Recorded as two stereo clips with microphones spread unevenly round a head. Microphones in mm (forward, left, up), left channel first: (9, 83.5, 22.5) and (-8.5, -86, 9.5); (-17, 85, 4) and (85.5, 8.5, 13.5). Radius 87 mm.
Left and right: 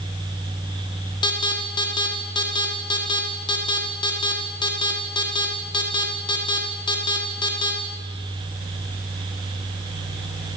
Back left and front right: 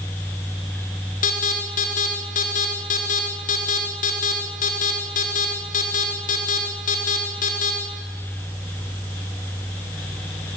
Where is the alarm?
150° left, 4 m.